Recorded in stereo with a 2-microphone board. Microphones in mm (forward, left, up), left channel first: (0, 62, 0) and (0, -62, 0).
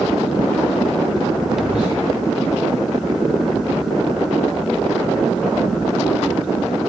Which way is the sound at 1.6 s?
30° left (ahead or behind).